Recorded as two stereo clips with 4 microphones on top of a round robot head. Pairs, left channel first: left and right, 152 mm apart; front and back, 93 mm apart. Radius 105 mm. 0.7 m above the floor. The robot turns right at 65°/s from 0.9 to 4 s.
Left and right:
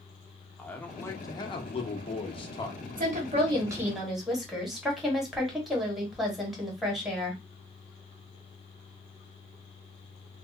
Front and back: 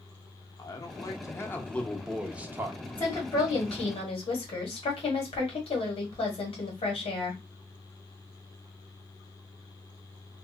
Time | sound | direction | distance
0.6 | a man speaking | 15° left | 0.8 m
3.0 | a woman speaking | 70° right | 1.3 m